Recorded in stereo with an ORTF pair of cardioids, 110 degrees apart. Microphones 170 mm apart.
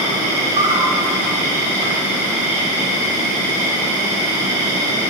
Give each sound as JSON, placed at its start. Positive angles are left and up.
{"t": 0.0, "sound": "an insect", "azimuth_deg": -45, "distance_m": 0.9}